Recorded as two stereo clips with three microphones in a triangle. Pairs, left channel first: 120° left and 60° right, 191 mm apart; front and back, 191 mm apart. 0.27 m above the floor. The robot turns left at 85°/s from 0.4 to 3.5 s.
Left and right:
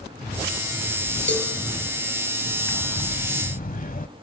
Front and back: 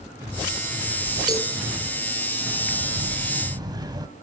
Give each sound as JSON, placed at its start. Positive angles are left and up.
{"t": 1.3, "sound": "a cowbell", "azimuth_deg": 115, "distance_m": 3.0}
{"t": 2.7, "sound": "breathing", "azimuth_deg": -170, "distance_m": 1.1}